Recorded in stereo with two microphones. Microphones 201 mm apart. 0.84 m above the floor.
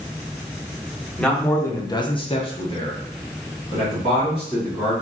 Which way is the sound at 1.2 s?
5° left (ahead or behind).